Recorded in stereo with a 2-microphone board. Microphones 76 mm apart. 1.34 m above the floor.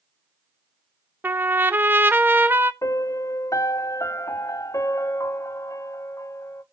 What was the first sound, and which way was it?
A trumpet, 25° right (ahead or behind).